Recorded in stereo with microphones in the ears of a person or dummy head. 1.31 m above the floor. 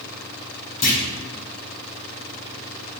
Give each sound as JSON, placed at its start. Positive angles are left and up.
{"t": 0.8, "sound": "a clunk", "side_deg": 40, "distance_m": 1.2}